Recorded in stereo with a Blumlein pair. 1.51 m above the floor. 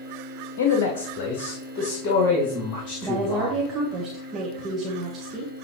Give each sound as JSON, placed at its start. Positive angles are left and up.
{"t": 0.6, "sound": "a man speaking", "azimuth_deg": 55, "distance_m": 0.9}
{"t": 3.0, "sound": "a woman speaking", "azimuth_deg": -20, "distance_m": 1.3}